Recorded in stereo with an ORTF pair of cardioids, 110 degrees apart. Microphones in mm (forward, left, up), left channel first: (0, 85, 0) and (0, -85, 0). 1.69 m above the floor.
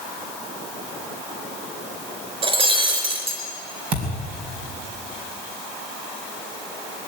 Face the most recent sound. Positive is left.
turn(degrees=-65)